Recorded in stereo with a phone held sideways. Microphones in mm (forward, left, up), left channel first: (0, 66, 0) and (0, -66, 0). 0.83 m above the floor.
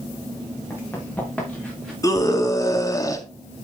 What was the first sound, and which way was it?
Running footsteps, 15° left (ahead or behind).